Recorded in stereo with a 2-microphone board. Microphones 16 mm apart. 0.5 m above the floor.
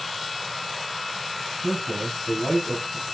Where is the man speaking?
25° left (ahead or behind), 3 m; by 3.1 s 10° left (ahead or behind), 2.5 m.